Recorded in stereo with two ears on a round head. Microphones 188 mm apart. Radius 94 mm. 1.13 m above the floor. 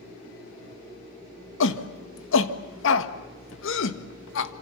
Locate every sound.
1.6 s a shout: 65° left (ahead or behind), 1.7 m